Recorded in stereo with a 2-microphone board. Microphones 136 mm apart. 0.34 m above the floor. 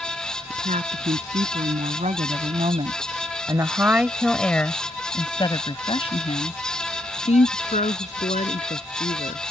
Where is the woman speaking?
70° right (ahead or behind); by 9.4 s 70° left (ahead or behind).